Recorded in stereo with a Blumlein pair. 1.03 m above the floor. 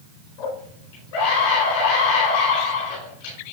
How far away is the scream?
About 4.5 m.